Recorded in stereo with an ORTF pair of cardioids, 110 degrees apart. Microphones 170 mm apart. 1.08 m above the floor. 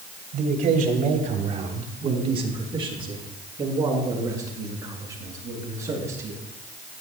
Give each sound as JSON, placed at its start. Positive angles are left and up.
{"t": 0.3, "sound": "a man speaking", "azimuth_deg": -60, "distance_m": 3.0}